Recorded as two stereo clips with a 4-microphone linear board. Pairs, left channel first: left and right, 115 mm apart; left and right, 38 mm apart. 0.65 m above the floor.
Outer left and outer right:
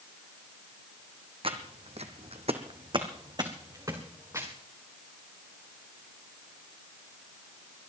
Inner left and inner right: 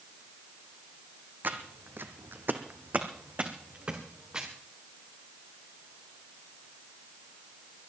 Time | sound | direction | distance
1.4 | footsteps | 50° right (ahead or behind) | 1.6 m